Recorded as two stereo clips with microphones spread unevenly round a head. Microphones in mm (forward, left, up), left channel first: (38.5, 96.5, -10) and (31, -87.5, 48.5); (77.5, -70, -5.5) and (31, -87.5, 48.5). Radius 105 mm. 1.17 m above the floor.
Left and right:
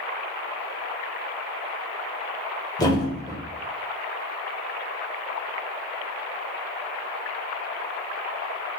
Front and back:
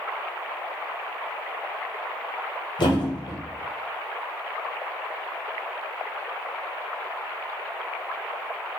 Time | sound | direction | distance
2.8 | a thud | 5° left | 1.0 m